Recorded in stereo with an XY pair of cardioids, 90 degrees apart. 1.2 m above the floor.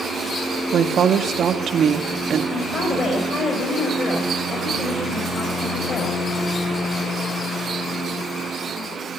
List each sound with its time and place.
0.7 s a woman speaking: 60° right, 1.8 m
2.5 s a woman speaking: 50° left, 5 m